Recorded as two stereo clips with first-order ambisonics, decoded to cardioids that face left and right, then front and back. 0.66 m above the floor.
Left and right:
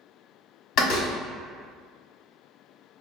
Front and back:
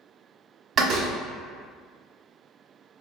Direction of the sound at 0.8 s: 125° left.